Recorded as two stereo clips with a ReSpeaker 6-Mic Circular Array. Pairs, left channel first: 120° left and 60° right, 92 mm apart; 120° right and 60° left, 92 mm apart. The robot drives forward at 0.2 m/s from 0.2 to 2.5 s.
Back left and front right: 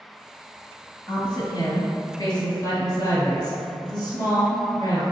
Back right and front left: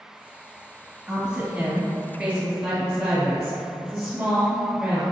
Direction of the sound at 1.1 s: 135° left.